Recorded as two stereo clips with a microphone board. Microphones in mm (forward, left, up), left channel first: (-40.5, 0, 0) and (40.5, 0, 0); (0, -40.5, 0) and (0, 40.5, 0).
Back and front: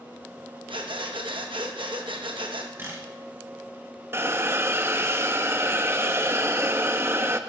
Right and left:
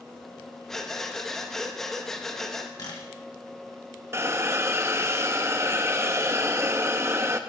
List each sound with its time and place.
0.7 s breathing: 5° right, 1.0 m
2.8 s a camera shutter: 60° right, 3 m
4.1 s a hiss: 50° left, 0.5 m